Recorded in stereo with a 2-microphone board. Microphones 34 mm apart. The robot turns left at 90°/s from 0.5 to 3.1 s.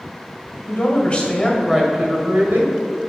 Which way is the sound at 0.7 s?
85° left.